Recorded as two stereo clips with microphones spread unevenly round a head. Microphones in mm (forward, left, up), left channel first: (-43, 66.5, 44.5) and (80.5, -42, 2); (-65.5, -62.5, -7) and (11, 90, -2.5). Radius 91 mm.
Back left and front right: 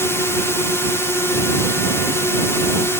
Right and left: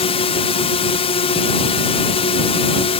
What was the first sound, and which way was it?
A drone, 135° right.